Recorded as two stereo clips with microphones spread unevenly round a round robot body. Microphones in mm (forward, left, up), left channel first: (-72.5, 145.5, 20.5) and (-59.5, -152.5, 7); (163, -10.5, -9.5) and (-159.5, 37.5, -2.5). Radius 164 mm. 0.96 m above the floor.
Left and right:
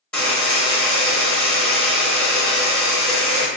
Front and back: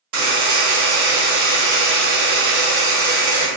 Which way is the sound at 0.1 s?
175° left.